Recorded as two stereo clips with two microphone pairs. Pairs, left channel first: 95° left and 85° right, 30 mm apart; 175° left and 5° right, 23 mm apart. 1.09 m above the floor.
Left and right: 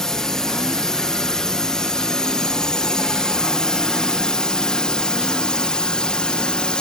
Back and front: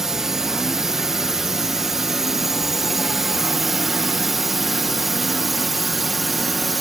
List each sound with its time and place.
0.0 s a drone: 40° left; by 6.8 s 80° left